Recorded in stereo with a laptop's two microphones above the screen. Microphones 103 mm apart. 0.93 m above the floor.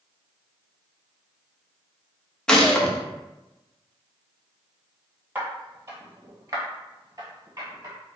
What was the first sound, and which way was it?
A gunshot, 5° left (ahead or behind).